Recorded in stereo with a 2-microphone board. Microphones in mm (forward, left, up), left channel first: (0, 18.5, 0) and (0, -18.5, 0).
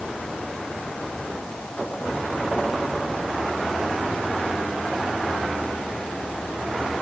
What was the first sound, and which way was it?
Only background noise.